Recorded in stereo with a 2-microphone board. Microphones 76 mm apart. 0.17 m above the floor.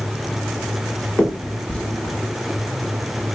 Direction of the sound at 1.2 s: 15° left (ahead or behind).